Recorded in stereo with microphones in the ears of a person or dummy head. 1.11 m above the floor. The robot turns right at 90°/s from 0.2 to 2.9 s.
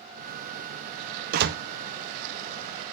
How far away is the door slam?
About 0.6 m.